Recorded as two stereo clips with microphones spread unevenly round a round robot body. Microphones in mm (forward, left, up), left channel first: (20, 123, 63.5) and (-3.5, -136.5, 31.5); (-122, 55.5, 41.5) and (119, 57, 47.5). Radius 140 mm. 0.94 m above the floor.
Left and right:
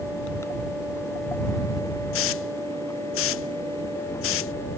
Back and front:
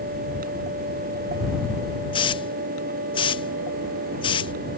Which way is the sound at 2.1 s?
115° left.